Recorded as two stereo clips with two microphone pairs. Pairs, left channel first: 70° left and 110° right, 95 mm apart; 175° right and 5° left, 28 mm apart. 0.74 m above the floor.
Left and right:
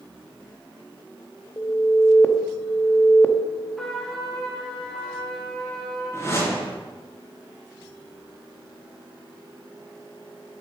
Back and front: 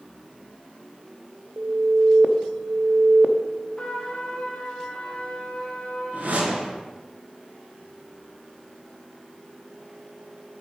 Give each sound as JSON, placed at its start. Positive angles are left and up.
{"t": 1.6, "sound": "an alarm", "azimuth_deg": 5, "distance_m": 0.6}
{"t": 3.8, "sound": "a trumpet", "azimuth_deg": 155, "distance_m": 1.3}
{"t": 6.1, "sound": "a whoosh", "azimuth_deg": 5, "distance_m": 3.0}